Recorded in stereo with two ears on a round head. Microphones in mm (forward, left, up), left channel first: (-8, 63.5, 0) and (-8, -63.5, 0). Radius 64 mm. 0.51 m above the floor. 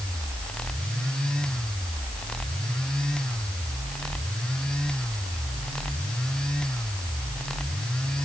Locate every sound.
Only background noise.